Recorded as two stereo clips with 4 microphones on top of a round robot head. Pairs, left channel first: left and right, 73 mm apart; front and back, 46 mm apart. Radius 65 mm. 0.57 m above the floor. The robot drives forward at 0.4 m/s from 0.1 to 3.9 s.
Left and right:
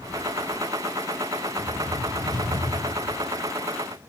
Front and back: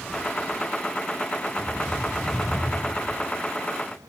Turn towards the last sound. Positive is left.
turn(degrees=-105)